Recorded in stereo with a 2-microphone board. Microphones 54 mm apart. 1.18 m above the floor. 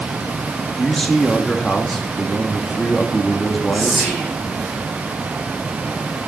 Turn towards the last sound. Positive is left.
turn(degrees=-15)  # may be behind; listen again after turning